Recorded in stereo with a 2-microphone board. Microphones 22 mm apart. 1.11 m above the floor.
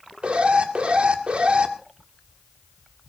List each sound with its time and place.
0.2 s an alarm: 55° right (ahead or behind), 1.8 m